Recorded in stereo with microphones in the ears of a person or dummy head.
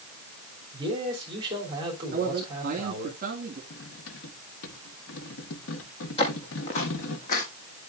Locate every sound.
0.7 s a man speaking: 25° right (ahead or behind), 3 m
2.1 s a man speaking: 45° right (ahead or behind), 2 m
3.7 s cutlery clinking: 75° left (ahead or behind), 1.2 m
6.2 s footsteps: 35° left (ahead or behind), 2.5 m; by 7.5 s 50° left (ahead or behind), 2.5 m